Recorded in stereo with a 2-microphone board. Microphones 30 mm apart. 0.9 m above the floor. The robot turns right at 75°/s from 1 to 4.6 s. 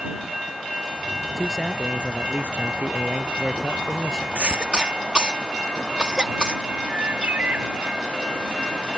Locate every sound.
1.4 s a man speaking: 170° left; by 4.2 s 25° left
4.3 s a cough: 50° right (ahead or behind); by 6.6 s 30° right (ahead or behind)
6.9 s a bird: 65° right (ahead or behind)